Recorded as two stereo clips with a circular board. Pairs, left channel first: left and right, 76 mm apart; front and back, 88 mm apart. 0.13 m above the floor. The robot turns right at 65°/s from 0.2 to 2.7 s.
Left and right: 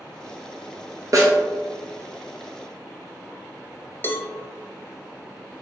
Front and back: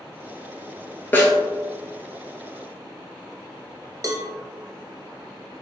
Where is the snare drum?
65° right, 1.0 m; by 1.4 s 50° right, 1.0 m.